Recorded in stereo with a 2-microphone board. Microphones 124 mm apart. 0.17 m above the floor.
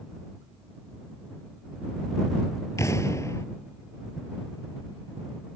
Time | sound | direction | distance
2.8 | an explosion | 25° left (ahead or behind) | ?